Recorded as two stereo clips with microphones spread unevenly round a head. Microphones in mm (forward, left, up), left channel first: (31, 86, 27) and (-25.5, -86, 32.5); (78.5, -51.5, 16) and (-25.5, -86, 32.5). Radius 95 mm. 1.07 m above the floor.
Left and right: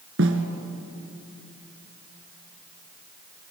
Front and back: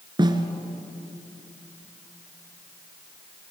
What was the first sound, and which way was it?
A snare drum, 120° right.